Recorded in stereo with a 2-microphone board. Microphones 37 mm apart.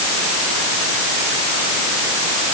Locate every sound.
Only background noise.